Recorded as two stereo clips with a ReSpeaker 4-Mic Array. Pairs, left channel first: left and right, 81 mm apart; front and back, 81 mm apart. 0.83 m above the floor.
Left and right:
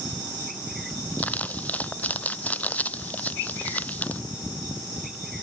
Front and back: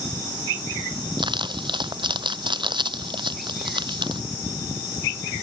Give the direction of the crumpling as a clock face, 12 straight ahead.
7 o'clock.